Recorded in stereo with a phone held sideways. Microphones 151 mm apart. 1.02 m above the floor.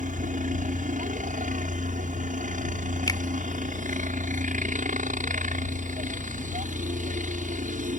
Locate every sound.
0.0 s a helicopter: 60° right (ahead or behind)
3.1 s a finger snap: 25° left (ahead or behind)